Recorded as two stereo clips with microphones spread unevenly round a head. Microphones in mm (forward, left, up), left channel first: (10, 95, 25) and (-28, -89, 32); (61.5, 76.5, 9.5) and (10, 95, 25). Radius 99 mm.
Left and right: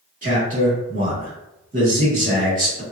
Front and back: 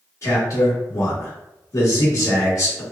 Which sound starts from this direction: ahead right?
A man speaking, at 0.2 s.